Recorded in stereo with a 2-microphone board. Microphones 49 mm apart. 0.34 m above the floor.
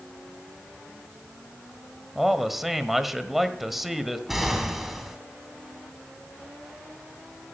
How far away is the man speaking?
About 1.3 m.